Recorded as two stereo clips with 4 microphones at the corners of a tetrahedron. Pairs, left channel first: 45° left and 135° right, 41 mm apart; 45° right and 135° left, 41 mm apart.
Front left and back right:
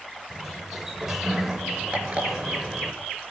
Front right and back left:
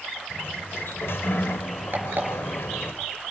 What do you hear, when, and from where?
0.3 s a sliding door: 55° right, 1.6 m
1.9 s an alarm clock: 170° left, 5 m